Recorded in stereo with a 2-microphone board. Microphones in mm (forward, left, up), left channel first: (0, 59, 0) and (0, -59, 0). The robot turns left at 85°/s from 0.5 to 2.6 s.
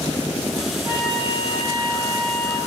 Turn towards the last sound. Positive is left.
turn(degrees=55)